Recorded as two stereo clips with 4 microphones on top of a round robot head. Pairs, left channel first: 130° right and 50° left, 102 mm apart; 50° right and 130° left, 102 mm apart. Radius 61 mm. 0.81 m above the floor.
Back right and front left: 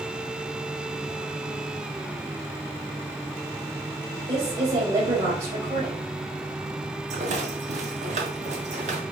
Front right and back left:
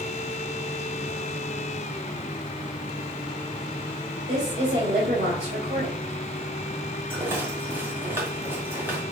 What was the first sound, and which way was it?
A woman speaking, 90° left.